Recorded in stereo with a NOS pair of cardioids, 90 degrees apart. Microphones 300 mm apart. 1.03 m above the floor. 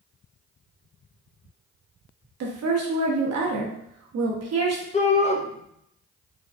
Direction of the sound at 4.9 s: 25° left.